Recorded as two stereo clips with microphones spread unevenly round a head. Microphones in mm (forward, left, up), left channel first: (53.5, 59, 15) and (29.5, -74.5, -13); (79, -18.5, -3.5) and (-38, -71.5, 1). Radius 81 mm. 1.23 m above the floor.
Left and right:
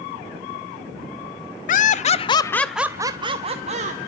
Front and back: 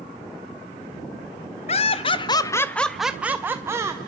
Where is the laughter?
60° left, 0.8 m; by 4.0 s 90° right, 1.2 m.